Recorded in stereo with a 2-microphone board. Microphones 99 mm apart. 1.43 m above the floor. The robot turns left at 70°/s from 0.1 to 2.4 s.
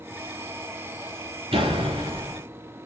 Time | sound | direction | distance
1.5 | a door slam | 80° right | 2.5 m